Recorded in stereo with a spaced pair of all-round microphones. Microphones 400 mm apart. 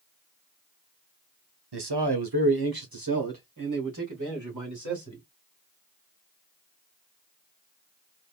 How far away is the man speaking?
About 0.8 m.